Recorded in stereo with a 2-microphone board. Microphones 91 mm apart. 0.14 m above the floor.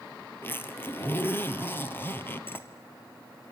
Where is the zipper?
25° left (ahead or behind), 2.0 m.